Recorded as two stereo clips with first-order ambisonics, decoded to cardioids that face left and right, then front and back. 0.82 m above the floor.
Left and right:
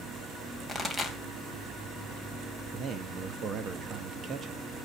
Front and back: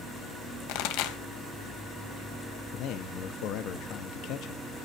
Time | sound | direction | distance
0.7 | a pop | 5° right | 2.5 m
2.7 | a man speaking | 35° right | 1.0 m